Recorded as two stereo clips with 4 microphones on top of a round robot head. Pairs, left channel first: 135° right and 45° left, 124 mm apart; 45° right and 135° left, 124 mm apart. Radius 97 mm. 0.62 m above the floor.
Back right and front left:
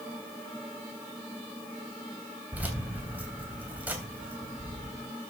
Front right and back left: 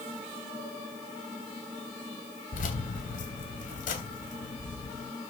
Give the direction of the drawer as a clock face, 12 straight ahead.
No drawer in this recording.